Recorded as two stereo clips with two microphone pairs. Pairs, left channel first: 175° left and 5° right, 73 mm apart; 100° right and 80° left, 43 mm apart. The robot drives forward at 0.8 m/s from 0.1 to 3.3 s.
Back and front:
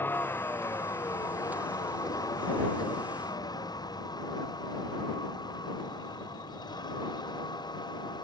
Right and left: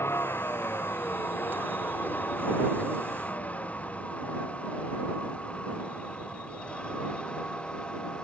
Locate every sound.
0.0 s a vehicle: 120° right; by 8.2 s 165° right